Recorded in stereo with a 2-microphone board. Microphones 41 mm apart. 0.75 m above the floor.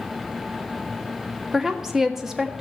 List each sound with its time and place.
1.5 s a woman speaking: 10° right (ahead or behind), 1.3 m